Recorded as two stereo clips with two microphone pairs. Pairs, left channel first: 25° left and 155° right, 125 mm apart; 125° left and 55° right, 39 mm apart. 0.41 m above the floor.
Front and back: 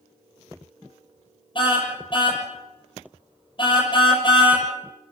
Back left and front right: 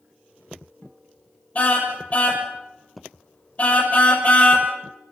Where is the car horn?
75° left, 6.5 m.